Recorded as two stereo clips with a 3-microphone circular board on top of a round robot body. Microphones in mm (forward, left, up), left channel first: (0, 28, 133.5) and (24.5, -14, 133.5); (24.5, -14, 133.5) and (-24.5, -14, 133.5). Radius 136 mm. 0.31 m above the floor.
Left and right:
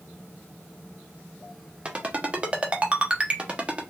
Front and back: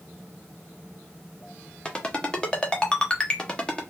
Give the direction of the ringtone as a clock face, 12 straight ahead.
1 o'clock.